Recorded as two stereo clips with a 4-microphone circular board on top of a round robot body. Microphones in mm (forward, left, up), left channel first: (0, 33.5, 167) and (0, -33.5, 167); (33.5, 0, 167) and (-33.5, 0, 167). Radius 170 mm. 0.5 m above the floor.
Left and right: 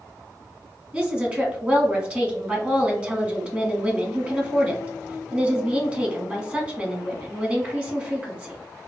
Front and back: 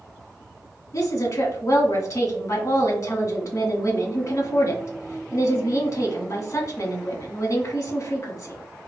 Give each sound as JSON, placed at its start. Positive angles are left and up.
{"t": 0.9, "sound": "a woman speaking", "azimuth_deg": -30, "distance_m": 1.5}